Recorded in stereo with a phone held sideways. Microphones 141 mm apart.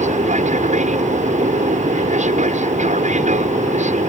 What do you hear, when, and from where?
0.0 s an aircraft: 60° right (ahead or behind)